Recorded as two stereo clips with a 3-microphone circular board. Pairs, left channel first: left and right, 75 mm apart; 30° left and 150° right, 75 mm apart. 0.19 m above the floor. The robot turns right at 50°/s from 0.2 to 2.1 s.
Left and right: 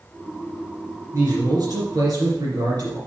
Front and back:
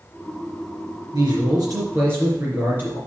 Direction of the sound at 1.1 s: 140° right.